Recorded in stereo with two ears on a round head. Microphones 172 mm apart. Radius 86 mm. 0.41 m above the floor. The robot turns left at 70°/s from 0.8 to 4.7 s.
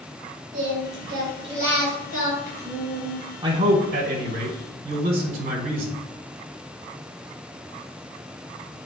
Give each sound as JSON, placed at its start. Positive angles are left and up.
{"t": 0.5, "sound": "singing", "azimuth_deg": -105, "distance_m": 3.5}
{"t": 3.4, "sound": "a man speaking", "azimuth_deg": -30, "distance_m": 1.3}